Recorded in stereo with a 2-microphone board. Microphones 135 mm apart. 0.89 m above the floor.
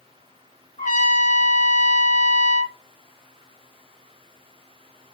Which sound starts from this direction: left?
A trumpet, at 0.8 s.